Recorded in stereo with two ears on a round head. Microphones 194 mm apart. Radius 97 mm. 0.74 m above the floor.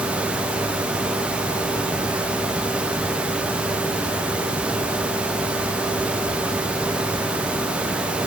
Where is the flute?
No flute in this recording.